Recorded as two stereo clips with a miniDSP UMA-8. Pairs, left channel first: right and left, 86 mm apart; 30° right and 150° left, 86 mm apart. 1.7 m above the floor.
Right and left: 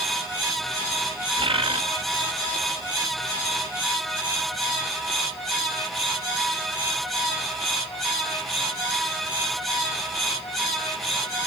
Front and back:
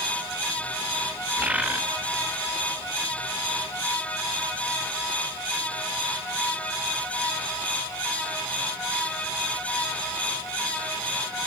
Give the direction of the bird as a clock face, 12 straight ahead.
9 o'clock.